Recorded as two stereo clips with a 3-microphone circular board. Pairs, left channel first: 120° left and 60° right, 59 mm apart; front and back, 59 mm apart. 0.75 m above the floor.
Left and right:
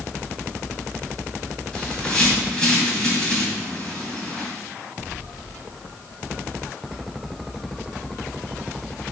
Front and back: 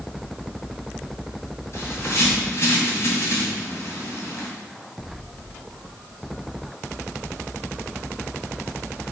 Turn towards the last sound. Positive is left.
turn(degrees=45)